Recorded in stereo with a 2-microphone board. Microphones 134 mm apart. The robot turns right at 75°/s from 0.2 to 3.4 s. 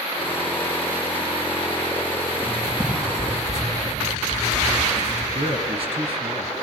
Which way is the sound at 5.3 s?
40° right (ahead or behind).